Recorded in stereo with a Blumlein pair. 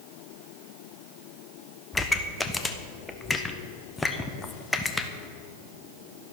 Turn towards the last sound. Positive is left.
turn(degrees=10)